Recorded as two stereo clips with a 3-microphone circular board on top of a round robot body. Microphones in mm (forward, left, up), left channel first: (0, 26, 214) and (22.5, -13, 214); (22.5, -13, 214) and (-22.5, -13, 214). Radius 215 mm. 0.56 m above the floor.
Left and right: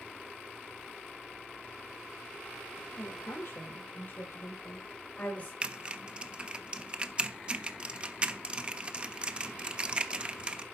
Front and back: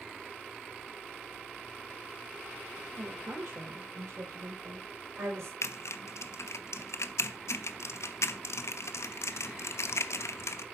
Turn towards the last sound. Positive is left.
turn(degrees=5)